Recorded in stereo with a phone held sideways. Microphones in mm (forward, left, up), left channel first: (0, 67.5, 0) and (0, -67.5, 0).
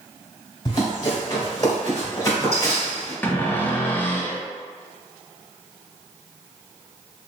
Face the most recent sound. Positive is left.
turn(degrees=15)  # may be behind; listen again after turning